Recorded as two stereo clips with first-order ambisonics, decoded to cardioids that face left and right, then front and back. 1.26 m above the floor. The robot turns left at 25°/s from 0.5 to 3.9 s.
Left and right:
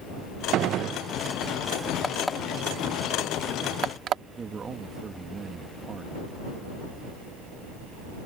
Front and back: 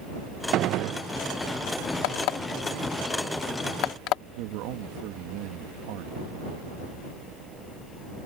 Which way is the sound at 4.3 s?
160° right.